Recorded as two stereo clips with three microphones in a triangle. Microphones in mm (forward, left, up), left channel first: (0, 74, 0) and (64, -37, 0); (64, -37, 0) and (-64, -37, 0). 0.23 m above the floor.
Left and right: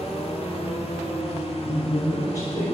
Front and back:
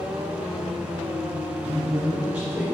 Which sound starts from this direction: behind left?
A woman speaking, at 1.6 s.